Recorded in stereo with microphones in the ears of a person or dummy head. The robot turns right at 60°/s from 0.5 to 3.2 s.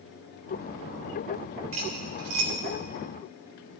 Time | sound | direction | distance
1.7 | cutlery clinking | 30° right (ahead or behind) | 2.5 m